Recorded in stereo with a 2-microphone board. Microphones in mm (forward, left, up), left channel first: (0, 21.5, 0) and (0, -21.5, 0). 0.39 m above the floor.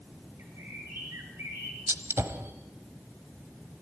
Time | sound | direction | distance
0.4 | a bird | 75° right (ahead or behind) | 6.5 m
1.9 | a gunshot | 70° right (ahead or behind) | 1.2 m